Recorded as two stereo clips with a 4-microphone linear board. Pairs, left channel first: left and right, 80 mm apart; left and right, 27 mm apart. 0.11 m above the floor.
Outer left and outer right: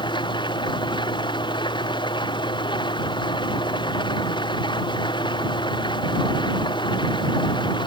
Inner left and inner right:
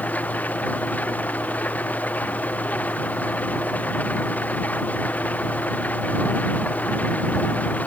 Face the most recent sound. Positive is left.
turn(degrees=65)  # may be behind; listen again after turning